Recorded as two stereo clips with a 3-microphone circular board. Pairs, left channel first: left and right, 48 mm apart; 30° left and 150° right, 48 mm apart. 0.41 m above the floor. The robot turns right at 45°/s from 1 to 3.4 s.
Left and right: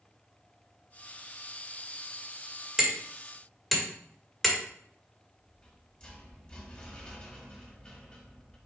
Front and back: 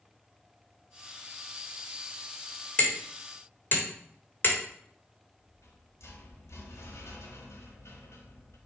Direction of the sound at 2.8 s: 20° right.